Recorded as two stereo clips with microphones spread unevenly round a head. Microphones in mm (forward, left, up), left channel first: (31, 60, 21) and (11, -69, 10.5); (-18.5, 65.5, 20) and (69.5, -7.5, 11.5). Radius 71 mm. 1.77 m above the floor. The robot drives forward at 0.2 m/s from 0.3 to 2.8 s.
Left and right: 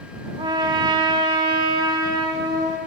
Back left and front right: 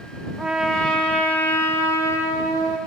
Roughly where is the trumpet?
Behind right.